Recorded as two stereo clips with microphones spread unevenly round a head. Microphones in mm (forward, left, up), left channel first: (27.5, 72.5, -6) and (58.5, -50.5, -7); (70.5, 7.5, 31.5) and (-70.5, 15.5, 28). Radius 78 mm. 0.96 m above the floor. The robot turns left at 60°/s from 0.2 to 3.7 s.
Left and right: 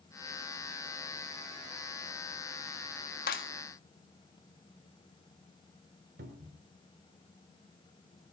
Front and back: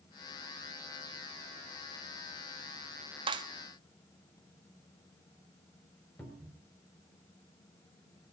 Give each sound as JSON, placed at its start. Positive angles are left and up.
{"t": 3.3, "sound": "a clap", "azimuth_deg": 125, "distance_m": 1.5}
{"t": 6.2, "sound": "a cupboard door", "azimuth_deg": -80, "distance_m": 4.0}